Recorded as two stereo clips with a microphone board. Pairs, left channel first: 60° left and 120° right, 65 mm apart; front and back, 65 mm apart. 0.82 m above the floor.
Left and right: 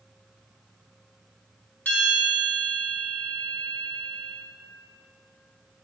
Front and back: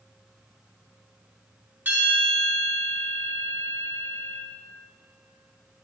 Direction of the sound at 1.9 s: 120° left.